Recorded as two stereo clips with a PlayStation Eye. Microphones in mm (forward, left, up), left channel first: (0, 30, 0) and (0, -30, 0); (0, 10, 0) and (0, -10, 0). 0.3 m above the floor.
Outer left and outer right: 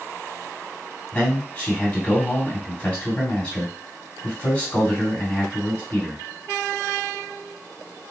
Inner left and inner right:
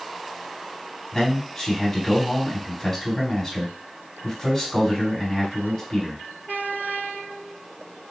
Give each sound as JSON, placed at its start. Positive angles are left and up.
{"t": 1.1, "sound": "a man speaking", "side_deg": 25, "distance_m": 2.5}